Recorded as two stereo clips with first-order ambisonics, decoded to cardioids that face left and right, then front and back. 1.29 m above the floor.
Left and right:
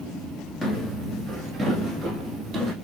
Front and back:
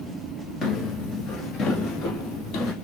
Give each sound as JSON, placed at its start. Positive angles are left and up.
{"t": 0.6, "sound": "footsteps", "azimuth_deg": 5, "distance_m": 1.3}